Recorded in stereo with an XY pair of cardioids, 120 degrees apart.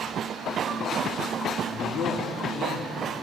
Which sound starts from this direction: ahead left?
A man speaking, at 1.7 s.